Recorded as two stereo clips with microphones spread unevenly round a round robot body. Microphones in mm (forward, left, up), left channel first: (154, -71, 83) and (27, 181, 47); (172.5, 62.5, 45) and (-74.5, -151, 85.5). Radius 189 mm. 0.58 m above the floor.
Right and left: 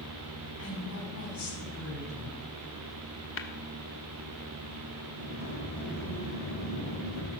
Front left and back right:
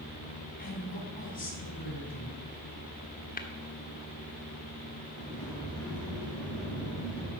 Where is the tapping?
20° right, 1.4 m.